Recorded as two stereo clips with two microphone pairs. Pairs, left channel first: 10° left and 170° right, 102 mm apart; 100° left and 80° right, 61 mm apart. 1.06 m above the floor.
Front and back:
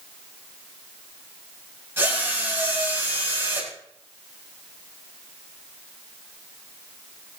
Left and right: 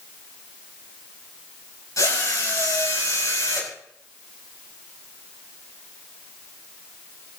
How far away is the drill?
About 5.5 m.